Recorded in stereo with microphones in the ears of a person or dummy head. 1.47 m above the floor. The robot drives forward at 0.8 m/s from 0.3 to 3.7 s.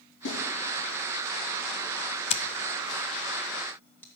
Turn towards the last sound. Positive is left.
turn(degrees=10)  # may be behind; listen again after turning